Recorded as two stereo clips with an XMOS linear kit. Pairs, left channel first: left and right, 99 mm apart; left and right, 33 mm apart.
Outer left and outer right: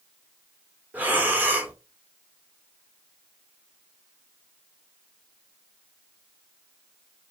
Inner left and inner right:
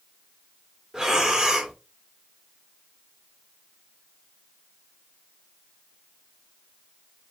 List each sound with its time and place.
0.9 s breathing: 20° right (ahead or behind), 0.6 m